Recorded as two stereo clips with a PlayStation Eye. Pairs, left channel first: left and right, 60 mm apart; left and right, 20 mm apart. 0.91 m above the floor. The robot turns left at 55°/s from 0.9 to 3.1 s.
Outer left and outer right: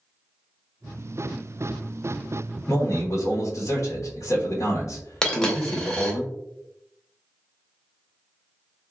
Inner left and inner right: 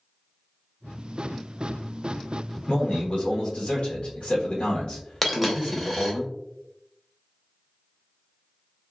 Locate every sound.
2.7 s a man speaking: 65° left (ahead or behind), 1.1 m; by 6.2 s 55° left (ahead or behind), 1.1 m
5.2 s a dropped coin: 10° left (ahead or behind), 0.6 m